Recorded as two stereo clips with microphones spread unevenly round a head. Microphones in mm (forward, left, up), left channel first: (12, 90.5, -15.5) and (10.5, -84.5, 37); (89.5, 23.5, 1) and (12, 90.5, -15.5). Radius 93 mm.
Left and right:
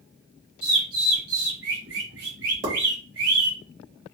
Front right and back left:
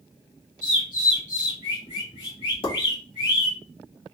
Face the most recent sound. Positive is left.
turn(degrees=-65)